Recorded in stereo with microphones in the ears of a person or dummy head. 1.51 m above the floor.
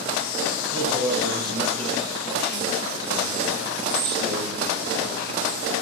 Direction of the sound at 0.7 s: 15° right (ahead or behind).